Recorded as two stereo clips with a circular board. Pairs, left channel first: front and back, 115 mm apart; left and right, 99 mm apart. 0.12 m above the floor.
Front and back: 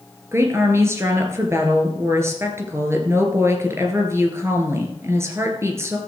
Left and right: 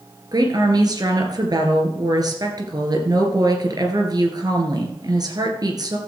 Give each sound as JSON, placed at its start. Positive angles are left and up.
{"t": 0.3, "sound": "a woman speaking", "azimuth_deg": -120, "distance_m": 2.0}